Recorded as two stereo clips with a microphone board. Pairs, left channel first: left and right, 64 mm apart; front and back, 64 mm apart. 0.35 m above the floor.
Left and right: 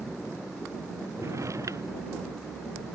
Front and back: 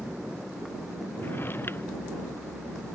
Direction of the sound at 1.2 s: 55° right.